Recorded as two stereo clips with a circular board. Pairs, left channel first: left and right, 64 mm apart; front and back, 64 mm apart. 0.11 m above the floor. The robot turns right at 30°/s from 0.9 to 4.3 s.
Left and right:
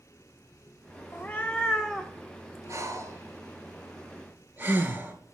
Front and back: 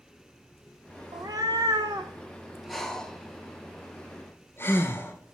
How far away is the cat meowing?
About 0.9 m.